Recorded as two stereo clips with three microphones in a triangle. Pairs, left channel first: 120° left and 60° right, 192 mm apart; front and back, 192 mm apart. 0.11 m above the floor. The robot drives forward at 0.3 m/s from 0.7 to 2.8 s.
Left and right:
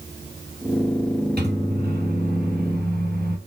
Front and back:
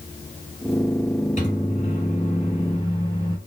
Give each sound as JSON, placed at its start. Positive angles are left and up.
{"t": 1.4, "sound": "a microwave", "azimuth_deg": -40, "distance_m": 1.9}